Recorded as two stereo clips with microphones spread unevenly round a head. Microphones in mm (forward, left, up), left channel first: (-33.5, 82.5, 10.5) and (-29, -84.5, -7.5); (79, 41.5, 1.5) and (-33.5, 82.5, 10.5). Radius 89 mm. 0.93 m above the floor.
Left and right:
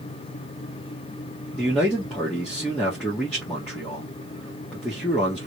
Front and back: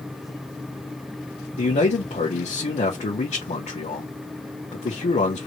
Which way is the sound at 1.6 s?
5° left.